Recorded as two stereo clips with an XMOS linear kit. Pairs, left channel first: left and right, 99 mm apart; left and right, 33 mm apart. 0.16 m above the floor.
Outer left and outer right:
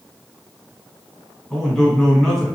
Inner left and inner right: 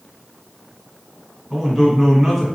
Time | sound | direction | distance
1.5 | a man speaking | centre (ahead or behind) | 1.4 m